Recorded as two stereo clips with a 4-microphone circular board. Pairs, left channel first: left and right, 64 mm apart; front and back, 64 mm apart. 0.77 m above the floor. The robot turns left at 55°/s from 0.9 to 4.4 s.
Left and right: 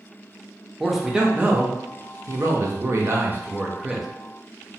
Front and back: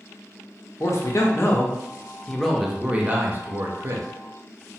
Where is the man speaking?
Straight ahead, 0.6 m; by 4.1 s 175° right, 0.6 m.